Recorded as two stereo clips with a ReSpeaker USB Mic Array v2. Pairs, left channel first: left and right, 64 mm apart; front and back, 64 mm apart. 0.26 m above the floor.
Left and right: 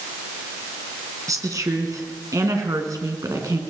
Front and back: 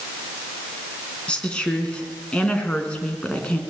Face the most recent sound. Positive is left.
turn(degrees=-70)